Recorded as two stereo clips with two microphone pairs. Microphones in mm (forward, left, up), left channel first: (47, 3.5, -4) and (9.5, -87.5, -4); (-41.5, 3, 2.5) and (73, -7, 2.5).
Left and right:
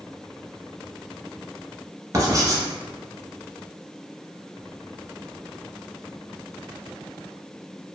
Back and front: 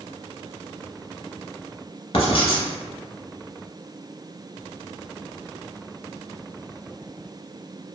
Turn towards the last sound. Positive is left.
turn(degrees=-155)